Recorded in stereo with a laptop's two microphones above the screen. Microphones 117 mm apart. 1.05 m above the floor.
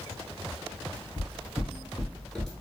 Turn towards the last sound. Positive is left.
turn(degrees=0)  # may be behind; listen again after turning